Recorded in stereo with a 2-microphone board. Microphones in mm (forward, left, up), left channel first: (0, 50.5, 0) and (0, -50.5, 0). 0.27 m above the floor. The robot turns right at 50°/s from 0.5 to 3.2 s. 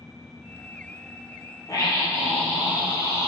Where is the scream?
140° left, 7 m; by 3.3 s 140° right, 7 m.